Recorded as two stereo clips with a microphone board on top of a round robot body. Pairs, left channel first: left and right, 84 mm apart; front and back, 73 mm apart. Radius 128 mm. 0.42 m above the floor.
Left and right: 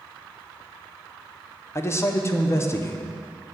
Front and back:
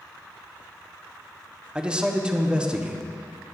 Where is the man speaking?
110° left, 0.8 m.